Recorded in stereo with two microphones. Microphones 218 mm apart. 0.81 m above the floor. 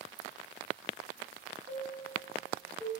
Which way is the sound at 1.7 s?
15° right (ahead or behind).